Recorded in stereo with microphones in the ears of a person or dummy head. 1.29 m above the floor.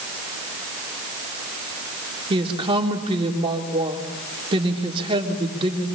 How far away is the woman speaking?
About 4 m.